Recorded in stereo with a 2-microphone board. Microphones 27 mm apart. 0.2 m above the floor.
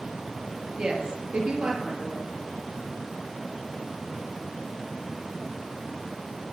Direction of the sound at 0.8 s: 40° right (ahead or behind).